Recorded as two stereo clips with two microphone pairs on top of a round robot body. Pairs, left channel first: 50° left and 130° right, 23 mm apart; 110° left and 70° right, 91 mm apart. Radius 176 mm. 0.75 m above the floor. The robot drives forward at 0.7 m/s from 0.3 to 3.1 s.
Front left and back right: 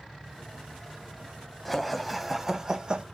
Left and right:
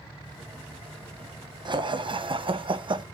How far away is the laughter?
About 1.4 m.